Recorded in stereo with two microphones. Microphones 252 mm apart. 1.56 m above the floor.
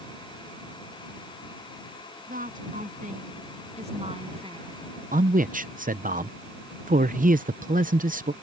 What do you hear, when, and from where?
2.3 s a woman speaking: 35° right (ahead or behind); by 4.8 s 20° right (ahead or behind)
5.1 s a man speaking: 35° right (ahead or behind)